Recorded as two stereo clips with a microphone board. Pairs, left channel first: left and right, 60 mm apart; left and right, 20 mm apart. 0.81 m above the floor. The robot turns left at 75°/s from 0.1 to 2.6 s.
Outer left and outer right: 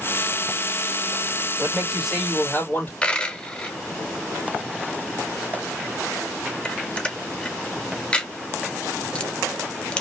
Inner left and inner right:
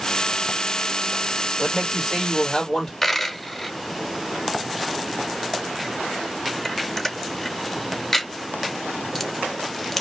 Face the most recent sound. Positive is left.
turn(degrees=15)  # may be behind; listen again after turning